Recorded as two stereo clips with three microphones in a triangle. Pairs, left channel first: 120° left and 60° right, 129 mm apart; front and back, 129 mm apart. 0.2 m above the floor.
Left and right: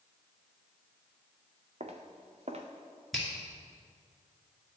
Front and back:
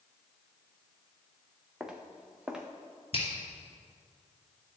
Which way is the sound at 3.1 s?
30° left.